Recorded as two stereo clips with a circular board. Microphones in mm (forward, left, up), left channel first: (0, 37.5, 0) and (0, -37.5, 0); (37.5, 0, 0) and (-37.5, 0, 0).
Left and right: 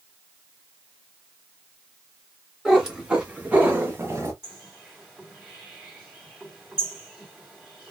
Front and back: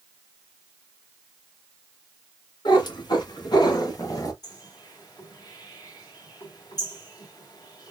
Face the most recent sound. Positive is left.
turn(degrees=-10)